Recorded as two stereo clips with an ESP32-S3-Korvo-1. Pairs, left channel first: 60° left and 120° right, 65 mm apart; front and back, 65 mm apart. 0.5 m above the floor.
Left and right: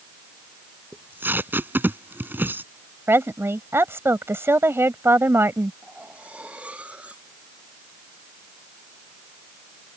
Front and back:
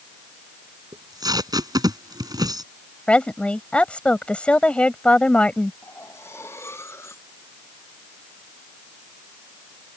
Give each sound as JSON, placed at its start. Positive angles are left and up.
{"t": 0.9, "sound": "tape being pulled", "azimuth_deg": 180}
{"t": 3.1, "sound": "a woman speaking", "azimuth_deg": -70}
{"t": 5.8, "sound": "cutlery clinking", "azimuth_deg": -50}